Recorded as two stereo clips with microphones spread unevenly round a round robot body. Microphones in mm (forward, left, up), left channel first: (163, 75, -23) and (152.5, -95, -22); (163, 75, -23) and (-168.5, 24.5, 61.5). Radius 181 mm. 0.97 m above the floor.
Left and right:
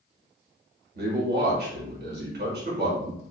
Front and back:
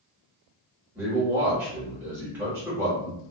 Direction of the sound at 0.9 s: 80° right.